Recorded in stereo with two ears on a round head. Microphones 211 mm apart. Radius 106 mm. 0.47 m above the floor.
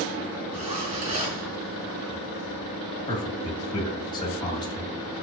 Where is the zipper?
25° right (ahead or behind), 4 m.